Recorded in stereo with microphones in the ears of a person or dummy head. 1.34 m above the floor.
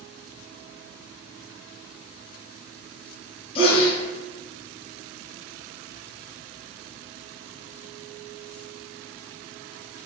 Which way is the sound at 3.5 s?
30° left (ahead or behind).